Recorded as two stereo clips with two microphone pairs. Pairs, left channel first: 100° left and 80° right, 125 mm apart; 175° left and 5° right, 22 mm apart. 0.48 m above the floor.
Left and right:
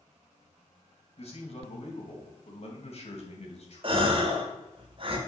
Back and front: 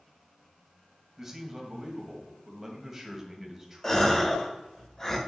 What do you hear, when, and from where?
1.2 s a man speaking: 70° left, 2 m
3.8 s a gasp: 115° right, 1.3 m